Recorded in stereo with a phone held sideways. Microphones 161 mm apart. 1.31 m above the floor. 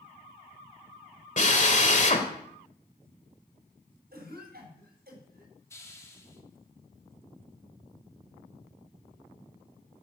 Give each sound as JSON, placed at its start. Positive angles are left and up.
{"t": 1.4, "sound": "a drill", "side_deg": 50, "distance_m": 2.0}
{"t": 4.1, "sound": "a cough", "side_deg": -75, "distance_m": 7.0}
{"t": 5.7, "sound": "a hiss", "side_deg": 20, "distance_m": 2.5}